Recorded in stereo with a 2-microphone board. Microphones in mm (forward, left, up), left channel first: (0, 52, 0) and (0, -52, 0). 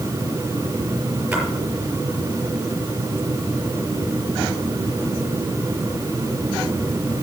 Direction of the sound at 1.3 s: 10° right (ahead or behind).